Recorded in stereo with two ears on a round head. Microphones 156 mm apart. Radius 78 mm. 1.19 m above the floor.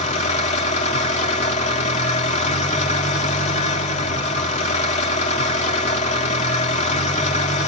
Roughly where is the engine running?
Left.